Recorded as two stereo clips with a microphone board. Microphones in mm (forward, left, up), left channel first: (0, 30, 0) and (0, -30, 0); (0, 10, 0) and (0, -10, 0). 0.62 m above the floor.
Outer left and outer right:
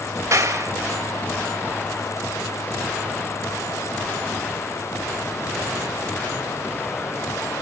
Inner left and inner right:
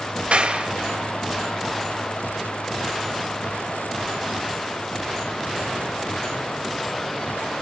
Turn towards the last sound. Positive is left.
turn(degrees=-65)  # may be behind; listen again after turning